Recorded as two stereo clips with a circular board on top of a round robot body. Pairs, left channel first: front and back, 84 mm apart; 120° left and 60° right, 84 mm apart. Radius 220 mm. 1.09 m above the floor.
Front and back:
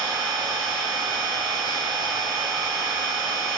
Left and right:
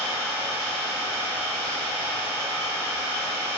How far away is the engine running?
About 1.9 m.